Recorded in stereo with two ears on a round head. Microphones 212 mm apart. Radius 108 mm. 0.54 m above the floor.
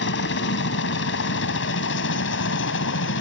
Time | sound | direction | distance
0.0 | a helicopter | 55° left (ahead or behind) | ?